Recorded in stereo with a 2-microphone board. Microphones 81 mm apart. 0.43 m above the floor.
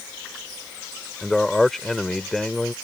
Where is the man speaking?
5° left (ahead or behind).